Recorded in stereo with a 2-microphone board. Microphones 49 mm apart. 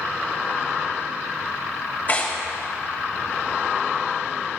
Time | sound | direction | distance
2.1 | tearing paper | 35° left (ahead or behind) | 2.5 m